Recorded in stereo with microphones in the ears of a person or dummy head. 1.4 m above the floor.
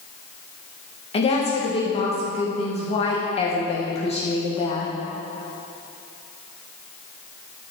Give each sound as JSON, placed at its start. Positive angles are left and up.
{"t": 1.1, "sound": "a woman speaking", "side_deg": 35, "distance_m": 1.5}